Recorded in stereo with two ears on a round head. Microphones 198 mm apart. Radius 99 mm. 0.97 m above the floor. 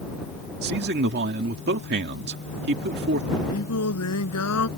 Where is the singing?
80° left.